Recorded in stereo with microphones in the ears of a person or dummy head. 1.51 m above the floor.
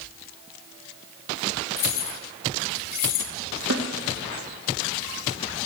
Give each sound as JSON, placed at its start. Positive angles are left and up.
{"t": 1.8, "sound": "keys jangling", "side_deg": 50, "distance_m": 3.0}
{"t": 3.7, "sound": "a snare drum", "side_deg": -75, "distance_m": 2.5}